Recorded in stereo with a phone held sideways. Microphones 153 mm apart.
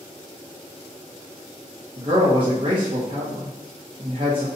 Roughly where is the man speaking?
Right.